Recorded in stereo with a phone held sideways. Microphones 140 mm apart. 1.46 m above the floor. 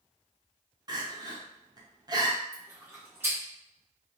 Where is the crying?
30° right (ahead or behind), 0.5 m.